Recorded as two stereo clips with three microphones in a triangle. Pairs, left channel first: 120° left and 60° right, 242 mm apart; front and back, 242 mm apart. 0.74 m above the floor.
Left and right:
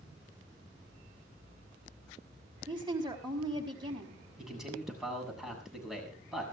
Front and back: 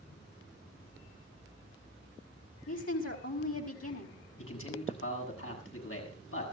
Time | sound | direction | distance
2.7 | a woman speaking | 10° left | 4.5 m
4.4 | a man speaking | 30° left | 7.5 m